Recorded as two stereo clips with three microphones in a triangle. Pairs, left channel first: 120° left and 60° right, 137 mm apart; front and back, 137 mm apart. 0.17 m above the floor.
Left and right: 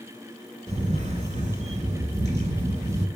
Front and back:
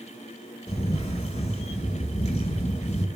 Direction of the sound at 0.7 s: 35° right.